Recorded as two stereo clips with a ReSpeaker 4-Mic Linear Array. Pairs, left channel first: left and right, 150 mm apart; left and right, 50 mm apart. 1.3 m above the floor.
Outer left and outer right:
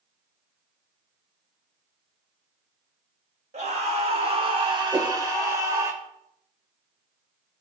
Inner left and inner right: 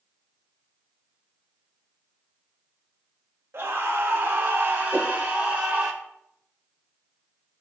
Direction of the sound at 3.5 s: 50° right (ahead or behind).